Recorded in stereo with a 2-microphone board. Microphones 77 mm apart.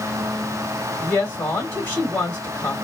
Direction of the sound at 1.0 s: 20° left (ahead or behind).